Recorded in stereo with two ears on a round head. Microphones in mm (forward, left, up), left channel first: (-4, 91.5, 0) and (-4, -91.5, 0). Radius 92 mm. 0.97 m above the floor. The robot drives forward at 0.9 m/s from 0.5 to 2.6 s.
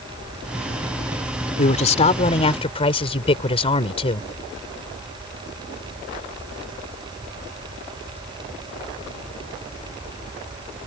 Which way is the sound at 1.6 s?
35° left (ahead or behind).